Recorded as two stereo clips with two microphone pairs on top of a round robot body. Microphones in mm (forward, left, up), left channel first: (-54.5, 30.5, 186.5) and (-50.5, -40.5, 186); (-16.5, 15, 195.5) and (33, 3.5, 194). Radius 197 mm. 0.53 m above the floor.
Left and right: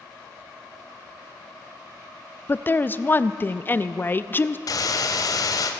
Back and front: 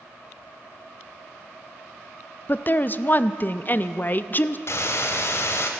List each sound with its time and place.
2.5 s a woman speaking: 140° left, 0.7 m
4.7 s a hiss: 130° left, 0.8 m